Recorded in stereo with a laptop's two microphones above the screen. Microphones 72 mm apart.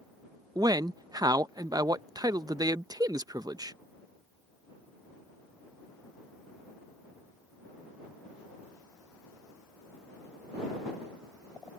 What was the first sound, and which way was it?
A man speaking, 60° right (ahead or behind).